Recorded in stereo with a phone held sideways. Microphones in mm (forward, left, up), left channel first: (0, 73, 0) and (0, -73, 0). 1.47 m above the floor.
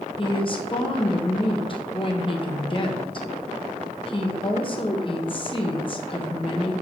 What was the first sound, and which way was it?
A woman speaking, 35° left (ahead or behind).